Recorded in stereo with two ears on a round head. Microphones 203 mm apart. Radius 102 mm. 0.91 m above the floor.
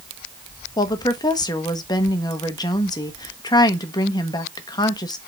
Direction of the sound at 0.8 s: 20° left (ahead or behind).